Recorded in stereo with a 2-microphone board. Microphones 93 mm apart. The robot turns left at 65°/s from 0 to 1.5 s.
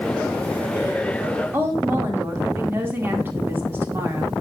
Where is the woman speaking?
25° right (ahead or behind), 2 m.